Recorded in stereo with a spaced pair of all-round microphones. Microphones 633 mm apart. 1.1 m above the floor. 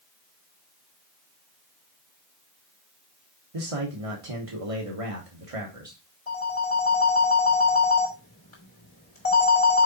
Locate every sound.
3.5 s a man speaking: 60° right (ahead or behind), 1.4 m
6.3 s a phone ringing: 70° left (ahead or behind), 3 m